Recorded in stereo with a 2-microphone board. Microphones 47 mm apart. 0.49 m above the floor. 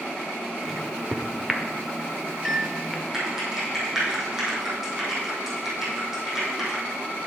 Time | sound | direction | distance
0.6 | a microwave | 5° right (ahead or behind) | 0.9 m
3.1 | typing on a keyboard | 10° right (ahead or behind) | 3.5 m